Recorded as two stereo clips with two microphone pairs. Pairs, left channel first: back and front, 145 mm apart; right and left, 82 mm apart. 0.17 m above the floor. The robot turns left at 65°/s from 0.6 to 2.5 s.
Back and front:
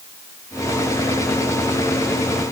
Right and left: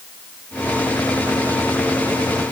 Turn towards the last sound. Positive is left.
No sound to turn to.